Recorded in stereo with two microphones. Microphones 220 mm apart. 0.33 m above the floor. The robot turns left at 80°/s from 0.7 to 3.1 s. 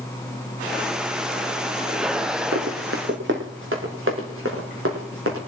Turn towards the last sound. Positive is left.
turn(degrees=-80)